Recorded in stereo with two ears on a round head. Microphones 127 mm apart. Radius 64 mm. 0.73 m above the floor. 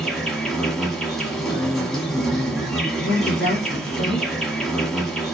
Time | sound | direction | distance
0.0 | an insect | 5° left (ahead or behind) | 0.9 m
1.5 | a man speaking | 5° left (ahead or behind) | 1.2 m
3.0 | a woman speaking | 60° left (ahead or behind) | 1.5 m